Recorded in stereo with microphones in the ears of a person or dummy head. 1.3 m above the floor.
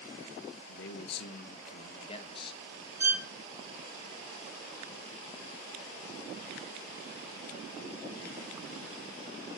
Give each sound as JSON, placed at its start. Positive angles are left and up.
{"t": 0.7, "sound": "a man speaking", "side_deg": 75, "distance_m": 1.5}
{"t": 3.0, "sound": "a violin", "side_deg": -10, "distance_m": 1.3}